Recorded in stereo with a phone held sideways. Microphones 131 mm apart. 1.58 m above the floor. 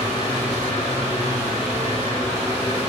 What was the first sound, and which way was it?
A fan, 20° right (ahead or behind).